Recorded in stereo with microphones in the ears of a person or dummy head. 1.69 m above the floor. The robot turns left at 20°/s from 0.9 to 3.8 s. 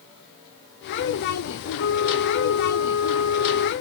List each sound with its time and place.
1.8 s a flute: 120° left, 0.7 m; by 3.7 s 80° left, 0.7 m